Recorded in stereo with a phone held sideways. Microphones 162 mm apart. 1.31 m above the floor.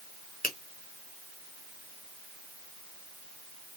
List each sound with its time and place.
0.4 s a finger snap: 60° left (ahead or behind), 1.2 m